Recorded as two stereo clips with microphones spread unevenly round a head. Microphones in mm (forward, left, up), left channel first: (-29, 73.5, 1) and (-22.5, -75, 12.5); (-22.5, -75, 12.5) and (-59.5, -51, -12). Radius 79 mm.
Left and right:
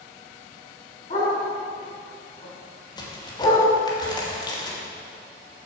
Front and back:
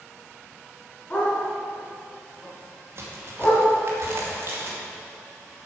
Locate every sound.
1.1 s a dog barking: 30° left, 3.5 m; by 3.7 s 20° left, 2 m
3.0 s a crack: 155° left, 2.5 m